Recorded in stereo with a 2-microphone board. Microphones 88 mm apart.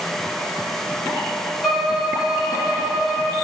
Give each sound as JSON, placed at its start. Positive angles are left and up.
{"t": 1.6, "sound": "a violin", "side_deg": 0, "distance_m": 4.5}